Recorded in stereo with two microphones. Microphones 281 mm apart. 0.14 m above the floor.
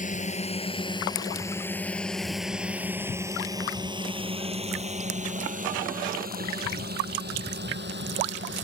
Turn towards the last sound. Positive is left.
turn(degrees=-40)  # may be behind; listen again after turning